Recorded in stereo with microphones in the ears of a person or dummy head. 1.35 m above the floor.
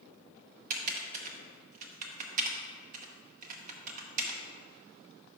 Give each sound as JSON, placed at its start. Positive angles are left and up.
{"t": 0.7, "sound": "typing on a keyboard", "side_deg": -40, "distance_m": 0.8}